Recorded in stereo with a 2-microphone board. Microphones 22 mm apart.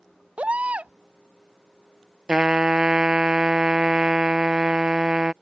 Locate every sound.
0.4 s a baby crying: 80° right
2.3 s a trumpet: 45° right (ahead or behind)